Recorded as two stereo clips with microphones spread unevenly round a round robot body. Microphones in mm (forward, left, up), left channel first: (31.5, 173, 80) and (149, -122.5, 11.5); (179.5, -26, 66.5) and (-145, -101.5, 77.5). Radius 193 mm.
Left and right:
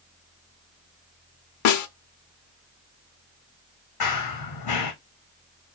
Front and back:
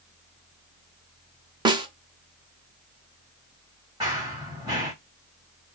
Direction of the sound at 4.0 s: 115° left.